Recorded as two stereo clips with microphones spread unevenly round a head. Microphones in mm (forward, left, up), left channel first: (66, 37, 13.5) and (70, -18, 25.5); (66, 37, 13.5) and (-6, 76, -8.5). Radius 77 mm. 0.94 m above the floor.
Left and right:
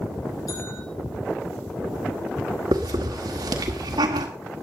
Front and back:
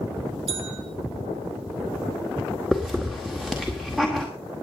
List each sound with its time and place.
0.5 s a bell: 155° left, 3.5 m
2.7 s a hiss: 120° right, 1.8 m